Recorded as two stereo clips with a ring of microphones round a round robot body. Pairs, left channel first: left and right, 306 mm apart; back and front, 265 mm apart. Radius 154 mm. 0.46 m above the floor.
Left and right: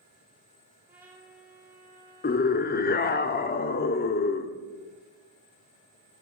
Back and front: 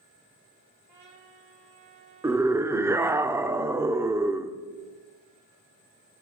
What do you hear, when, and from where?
0.9 s a trumpet: 5° right, 4 m
2.2 s a scream: 70° left, 0.9 m